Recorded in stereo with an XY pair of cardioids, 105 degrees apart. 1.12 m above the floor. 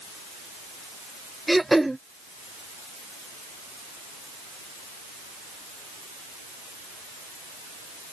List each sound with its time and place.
1.5 s throat clearing: 10° right